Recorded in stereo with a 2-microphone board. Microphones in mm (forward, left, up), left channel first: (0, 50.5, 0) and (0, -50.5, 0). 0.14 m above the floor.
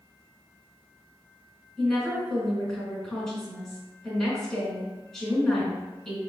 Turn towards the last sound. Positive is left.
turn(degrees=5)  # may be behind; listen again after turning